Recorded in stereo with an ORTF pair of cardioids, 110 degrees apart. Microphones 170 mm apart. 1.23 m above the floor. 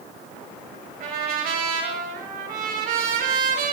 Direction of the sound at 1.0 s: 60° right.